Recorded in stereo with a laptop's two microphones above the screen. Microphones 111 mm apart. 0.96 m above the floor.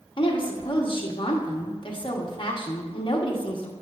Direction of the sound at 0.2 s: 50° left (ahead or behind).